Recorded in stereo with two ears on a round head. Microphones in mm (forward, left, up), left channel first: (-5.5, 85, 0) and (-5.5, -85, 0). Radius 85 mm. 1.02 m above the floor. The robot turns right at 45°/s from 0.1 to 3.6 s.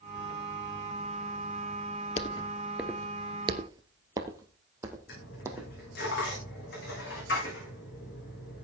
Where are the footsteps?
35° left (ahead or behind), 1.4 m; by 5.7 s 15° right (ahead or behind), 3 m.